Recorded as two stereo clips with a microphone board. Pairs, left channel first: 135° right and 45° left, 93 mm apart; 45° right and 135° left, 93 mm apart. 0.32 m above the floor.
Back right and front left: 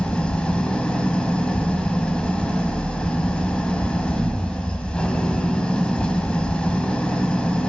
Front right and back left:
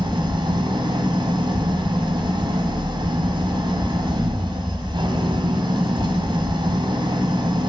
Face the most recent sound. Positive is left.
turn(degrees=145)